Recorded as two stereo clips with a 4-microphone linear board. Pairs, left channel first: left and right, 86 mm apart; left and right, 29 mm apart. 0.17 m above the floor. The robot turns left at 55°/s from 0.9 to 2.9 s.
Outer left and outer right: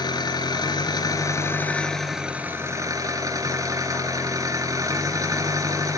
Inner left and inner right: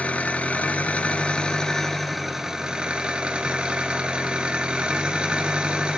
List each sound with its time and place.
0.0 s an engine running: 65° left, 2 m; by 6.0 s 45° right, 2 m